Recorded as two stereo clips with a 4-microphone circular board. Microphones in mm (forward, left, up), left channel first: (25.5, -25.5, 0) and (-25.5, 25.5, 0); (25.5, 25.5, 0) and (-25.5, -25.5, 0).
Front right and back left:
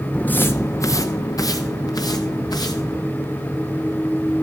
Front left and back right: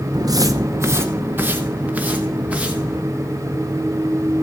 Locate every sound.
0.1 s footsteps: 120° right, 0.5 m; by 3.0 s 60° right, 2 m